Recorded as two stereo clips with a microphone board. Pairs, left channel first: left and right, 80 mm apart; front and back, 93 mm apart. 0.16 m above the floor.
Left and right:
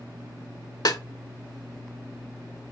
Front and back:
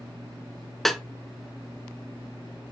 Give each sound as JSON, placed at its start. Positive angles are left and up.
{"t": 0.8, "sound": "a snare drum", "azimuth_deg": 85, "distance_m": 0.6}